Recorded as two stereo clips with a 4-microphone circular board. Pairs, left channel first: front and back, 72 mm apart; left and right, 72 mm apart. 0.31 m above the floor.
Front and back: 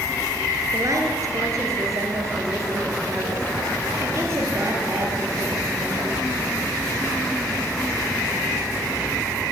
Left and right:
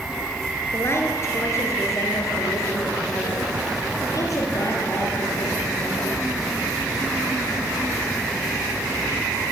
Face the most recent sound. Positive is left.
turn(degrees=125)